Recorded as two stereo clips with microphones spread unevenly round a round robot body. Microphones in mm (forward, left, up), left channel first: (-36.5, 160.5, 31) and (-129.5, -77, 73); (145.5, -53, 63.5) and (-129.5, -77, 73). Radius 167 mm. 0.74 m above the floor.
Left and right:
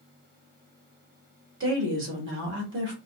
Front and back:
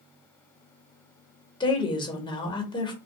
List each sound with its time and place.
1.6 s a woman speaking: 65° right, 1.4 m